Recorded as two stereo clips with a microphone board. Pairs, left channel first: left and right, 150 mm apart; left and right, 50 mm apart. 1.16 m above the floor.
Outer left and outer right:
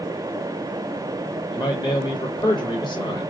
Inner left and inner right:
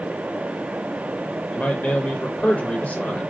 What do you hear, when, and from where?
1.5 s a man speaking: 30° left (ahead or behind), 0.9 m